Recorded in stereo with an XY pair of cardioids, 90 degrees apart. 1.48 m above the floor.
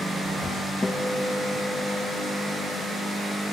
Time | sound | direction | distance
0.8 | a guitar | 25° left | 1.5 m